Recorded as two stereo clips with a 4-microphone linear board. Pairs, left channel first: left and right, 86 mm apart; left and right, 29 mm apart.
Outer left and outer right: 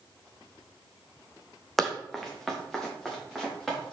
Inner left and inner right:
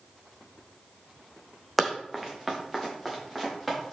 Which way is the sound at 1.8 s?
Centre (ahead or behind).